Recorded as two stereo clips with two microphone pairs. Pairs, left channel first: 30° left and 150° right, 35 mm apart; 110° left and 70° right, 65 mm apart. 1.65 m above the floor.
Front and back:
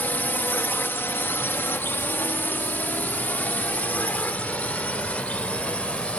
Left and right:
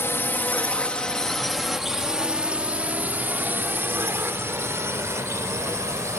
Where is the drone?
60° left; by 6.2 s 25° right.